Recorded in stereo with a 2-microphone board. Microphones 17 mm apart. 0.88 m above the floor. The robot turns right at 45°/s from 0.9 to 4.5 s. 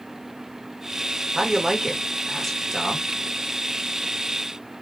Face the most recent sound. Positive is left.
turn(degrees=95)